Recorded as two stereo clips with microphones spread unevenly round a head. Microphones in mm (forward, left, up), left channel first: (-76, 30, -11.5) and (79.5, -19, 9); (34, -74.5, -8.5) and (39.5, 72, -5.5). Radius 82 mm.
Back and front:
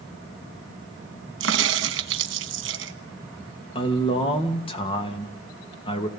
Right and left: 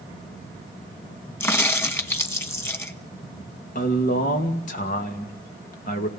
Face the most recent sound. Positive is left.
turn(degrees=-140)